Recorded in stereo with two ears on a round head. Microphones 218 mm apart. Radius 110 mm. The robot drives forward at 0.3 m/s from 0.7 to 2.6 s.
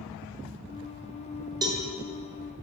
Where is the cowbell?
15° right (ahead or behind), 0.5 m.